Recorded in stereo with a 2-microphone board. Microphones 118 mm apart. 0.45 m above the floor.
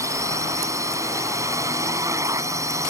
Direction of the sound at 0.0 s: 25° right (ahead or behind).